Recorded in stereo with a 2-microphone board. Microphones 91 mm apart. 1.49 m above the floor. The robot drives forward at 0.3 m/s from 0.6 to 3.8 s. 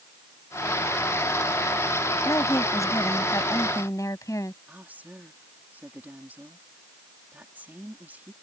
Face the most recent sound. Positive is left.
turn(degrees=-20)  # may be behind; listen again after turning